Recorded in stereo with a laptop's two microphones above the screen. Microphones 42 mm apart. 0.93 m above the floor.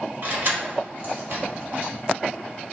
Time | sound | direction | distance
0.2 | keys jangling | 55° right (ahead or behind) | 1.6 m